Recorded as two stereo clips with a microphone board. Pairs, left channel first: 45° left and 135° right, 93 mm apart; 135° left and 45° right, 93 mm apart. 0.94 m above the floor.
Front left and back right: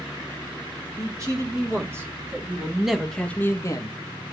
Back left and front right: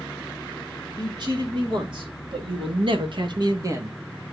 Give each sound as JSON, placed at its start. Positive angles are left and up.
{"t": 1.0, "sound": "a man speaking", "azimuth_deg": -80, "distance_m": 3.0}